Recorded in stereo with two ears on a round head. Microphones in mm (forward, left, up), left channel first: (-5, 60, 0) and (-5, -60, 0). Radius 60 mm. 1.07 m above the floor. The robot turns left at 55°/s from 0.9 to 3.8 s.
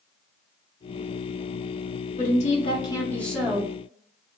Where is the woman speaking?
70° left, 0.9 m; by 3.7 s 15° right, 0.9 m.